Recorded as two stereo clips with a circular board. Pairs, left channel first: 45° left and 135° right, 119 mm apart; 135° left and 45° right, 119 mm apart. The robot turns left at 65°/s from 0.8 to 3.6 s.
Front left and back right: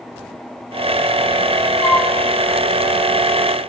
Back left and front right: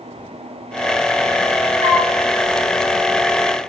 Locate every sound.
1.8 s a flute: 60° right, 9 m; by 2.1 s 80° right, 9 m